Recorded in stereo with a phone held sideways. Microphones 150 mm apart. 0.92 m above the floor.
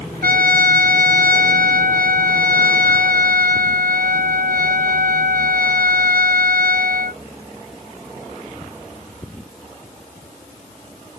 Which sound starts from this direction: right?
A trumpet, at 0.2 s.